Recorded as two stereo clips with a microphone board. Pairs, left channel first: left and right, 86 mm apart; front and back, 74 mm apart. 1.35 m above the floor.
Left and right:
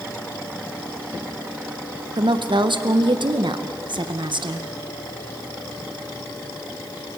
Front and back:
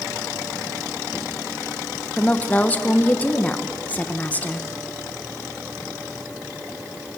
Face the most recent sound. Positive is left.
turn(degrees=-70)